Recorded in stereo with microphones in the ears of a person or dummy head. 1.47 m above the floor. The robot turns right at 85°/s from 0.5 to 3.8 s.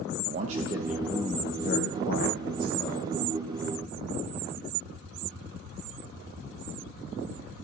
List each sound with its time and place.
0.3 s a man speaking: 40° right, 1.1 m; by 3.1 s straight behind, 1.1 m